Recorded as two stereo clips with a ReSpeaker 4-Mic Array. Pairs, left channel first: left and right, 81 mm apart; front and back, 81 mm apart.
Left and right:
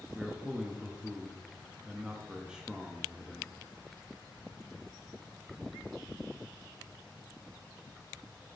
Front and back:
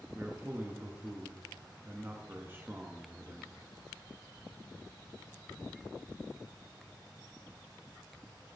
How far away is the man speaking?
About 0.5 m.